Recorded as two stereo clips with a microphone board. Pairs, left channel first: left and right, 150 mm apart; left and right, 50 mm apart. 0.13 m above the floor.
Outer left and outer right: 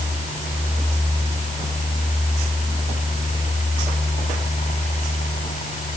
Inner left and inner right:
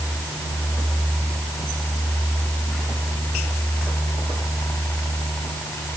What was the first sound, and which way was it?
Only background noise.